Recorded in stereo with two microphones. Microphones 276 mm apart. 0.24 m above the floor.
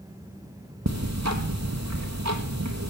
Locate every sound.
0.9 s ticking: 75° right (ahead or behind), 1.5 m